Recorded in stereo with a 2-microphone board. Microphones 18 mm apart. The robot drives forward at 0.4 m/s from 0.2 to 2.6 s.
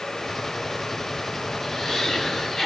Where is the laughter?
35° left (ahead or behind), 1.7 m; by 2.7 s 30° left (ahead or behind), 1.7 m.